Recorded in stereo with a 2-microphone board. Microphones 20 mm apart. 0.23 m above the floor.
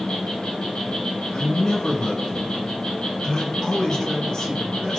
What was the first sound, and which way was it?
An insect, 65° left (ahead or behind).